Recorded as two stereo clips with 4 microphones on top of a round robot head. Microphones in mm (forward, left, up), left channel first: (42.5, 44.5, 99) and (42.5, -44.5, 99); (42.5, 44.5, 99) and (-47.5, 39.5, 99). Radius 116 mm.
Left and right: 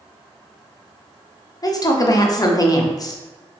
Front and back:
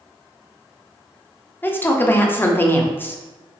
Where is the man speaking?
65° left, 0.7 m.